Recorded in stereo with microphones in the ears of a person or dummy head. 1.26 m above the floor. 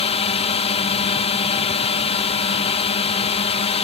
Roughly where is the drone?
Left.